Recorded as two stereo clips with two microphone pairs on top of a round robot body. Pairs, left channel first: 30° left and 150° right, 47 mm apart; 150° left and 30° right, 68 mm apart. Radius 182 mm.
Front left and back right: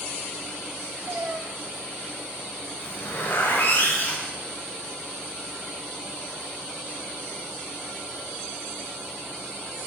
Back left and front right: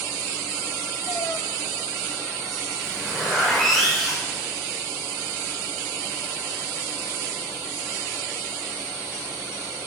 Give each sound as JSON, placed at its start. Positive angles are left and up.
{"t": 1.1, "sound": "a cat meowing", "azimuth_deg": 170, "distance_m": 1.1}
{"t": 2.8, "sound": "a zipper", "azimuth_deg": 65, "distance_m": 7.0}